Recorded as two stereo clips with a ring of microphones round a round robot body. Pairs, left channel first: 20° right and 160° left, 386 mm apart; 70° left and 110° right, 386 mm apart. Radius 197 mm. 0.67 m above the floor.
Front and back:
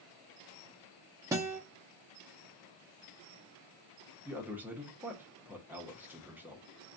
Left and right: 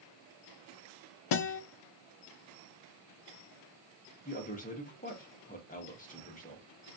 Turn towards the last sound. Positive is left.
turn(degrees=80)